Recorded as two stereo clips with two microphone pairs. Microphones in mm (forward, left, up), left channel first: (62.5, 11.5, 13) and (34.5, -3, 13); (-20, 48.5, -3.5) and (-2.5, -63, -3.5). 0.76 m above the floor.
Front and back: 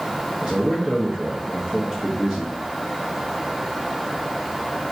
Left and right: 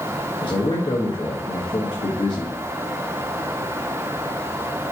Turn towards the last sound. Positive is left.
turn(degrees=125)